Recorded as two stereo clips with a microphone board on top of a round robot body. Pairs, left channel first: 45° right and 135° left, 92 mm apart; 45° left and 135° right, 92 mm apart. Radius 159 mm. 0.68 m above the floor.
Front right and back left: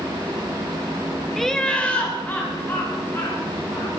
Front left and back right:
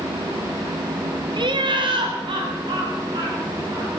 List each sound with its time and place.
1.4 s laughter: 135° right, 1.4 m; by 3.9 s 105° right, 4 m